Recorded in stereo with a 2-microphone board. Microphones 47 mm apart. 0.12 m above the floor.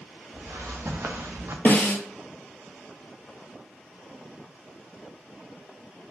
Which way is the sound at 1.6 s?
50° left (ahead or behind).